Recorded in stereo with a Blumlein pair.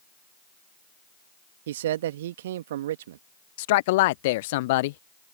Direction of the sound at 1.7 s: 55° right.